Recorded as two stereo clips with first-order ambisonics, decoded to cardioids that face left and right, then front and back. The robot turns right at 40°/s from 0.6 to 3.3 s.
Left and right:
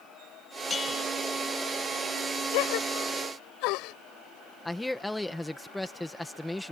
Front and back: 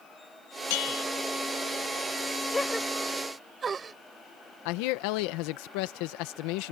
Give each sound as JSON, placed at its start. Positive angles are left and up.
{"t": 0.7, "sound": "a bell", "azimuth_deg": 10}
{"t": 2.5, "sound": "a gasp", "azimuth_deg": 80}
{"t": 4.7, "sound": "a man speaking", "azimuth_deg": 5}